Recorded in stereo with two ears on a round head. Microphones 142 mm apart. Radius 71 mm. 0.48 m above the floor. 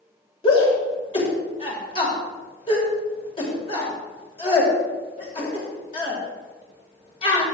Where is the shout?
35° left (ahead or behind), 2.5 m.